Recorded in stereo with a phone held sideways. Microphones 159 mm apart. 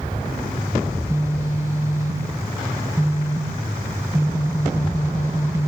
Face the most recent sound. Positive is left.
turn(degrees=-20)  # may be behind; listen again after turning